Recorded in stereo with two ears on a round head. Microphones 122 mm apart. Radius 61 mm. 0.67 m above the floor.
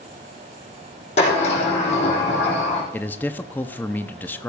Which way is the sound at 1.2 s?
50° left (ahead or behind).